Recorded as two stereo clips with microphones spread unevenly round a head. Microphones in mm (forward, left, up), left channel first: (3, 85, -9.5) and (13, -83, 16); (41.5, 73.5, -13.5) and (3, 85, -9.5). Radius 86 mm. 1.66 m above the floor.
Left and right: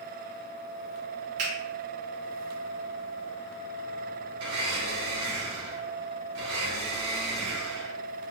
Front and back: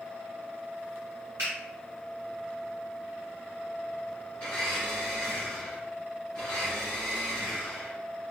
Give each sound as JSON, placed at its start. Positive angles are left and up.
{"t": 1.4, "sound": "a finger snap", "azimuth_deg": -135, "distance_m": 1.9}
{"t": 4.4, "sound": "a blender", "azimuth_deg": -95, "distance_m": 1.7}